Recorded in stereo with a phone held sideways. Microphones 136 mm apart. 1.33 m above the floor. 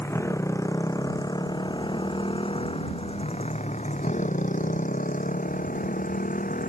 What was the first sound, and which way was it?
A motorcycle, 20° left (ahead or behind).